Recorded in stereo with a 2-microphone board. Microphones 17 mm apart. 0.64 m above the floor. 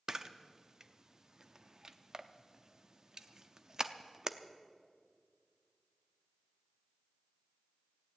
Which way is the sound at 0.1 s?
35° right (ahead or behind).